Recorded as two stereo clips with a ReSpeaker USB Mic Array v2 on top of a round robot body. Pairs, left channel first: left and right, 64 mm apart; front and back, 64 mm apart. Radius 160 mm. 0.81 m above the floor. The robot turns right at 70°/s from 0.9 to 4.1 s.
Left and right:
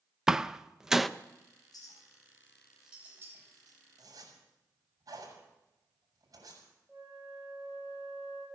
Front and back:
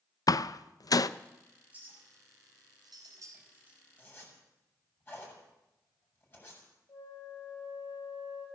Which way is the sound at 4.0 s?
70° right.